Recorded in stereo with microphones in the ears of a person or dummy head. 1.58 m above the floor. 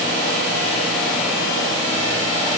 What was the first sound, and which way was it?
Only background noise.